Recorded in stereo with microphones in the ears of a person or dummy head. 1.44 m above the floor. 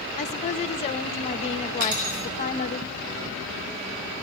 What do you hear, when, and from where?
0.2 s a woman speaking: 30° left (ahead or behind), 1.4 m
1.8 s cutlery clinking: 60° right (ahead or behind), 5.5 m